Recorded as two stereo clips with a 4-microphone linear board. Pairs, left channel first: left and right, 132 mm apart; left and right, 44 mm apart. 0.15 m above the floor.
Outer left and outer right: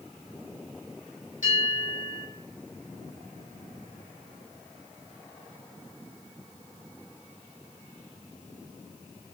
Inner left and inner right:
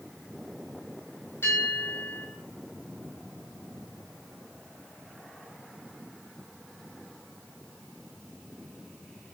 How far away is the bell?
About 5 m.